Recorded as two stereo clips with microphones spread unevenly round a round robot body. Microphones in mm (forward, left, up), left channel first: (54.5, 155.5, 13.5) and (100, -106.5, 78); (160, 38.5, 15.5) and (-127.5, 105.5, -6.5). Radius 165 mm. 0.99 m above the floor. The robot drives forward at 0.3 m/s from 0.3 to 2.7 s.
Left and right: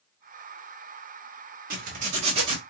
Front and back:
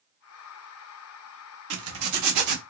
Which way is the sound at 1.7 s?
140° right.